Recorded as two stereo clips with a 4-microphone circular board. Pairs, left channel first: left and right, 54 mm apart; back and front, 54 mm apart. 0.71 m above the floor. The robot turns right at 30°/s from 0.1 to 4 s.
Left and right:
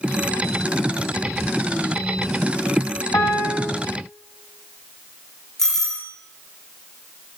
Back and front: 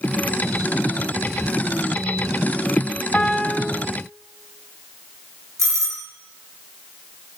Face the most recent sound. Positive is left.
turn(degrees=10)